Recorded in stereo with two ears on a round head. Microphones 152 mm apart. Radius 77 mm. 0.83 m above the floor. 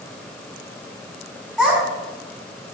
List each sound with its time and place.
1.6 s a child speaking: centre (ahead or behind), 4 m